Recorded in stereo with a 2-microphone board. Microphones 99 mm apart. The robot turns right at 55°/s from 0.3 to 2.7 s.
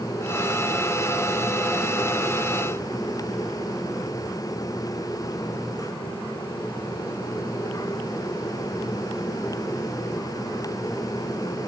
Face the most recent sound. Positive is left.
No sound to turn to.